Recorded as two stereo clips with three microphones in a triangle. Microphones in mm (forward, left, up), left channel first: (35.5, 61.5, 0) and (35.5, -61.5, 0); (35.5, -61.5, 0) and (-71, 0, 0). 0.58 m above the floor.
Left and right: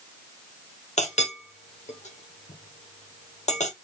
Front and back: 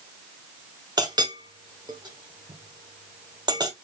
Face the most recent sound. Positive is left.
turn(degrees=100)